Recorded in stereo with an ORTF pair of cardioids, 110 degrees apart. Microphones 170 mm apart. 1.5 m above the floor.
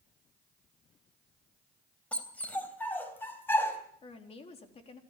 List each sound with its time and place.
2.1 s a dog barking: 10° left, 3.5 m; by 3.8 s 15° left, 4.5 m
4.0 s a woman speaking: 40° left, 4 m